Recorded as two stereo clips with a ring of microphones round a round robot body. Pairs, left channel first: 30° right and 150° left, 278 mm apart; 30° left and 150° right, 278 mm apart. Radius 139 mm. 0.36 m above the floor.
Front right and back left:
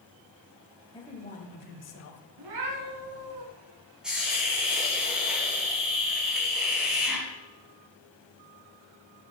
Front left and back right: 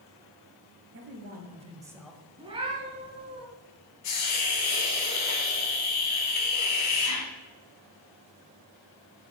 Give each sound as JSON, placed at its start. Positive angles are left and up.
{"t": 0.9, "sound": "a man speaking", "azimuth_deg": -105, "distance_m": 1.8}
{"t": 2.4, "sound": "a cat meowing", "azimuth_deg": 135, "distance_m": 1.9}
{"t": 4.0, "sound": "a hiss", "azimuth_deg": 60, "distance_m": 2.5}